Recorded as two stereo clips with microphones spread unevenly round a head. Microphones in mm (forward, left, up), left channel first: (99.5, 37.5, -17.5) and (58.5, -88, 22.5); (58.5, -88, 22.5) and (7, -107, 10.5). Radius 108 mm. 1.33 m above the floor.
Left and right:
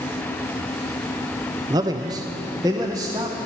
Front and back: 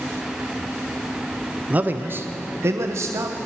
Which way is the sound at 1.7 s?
175° left.